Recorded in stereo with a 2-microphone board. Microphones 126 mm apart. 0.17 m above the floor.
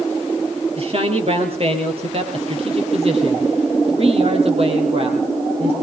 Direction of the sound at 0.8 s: 50° right (ahead or behind).